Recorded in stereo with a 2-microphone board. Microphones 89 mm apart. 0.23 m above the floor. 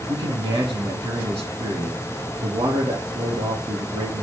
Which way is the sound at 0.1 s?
80° right.